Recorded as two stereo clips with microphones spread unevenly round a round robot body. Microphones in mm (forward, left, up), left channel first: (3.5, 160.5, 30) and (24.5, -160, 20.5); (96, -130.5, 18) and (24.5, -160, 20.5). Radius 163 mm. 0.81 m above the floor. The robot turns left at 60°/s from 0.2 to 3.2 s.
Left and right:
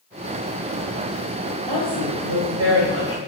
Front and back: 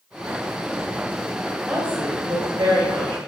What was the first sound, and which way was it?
A woman speaking, 80° right.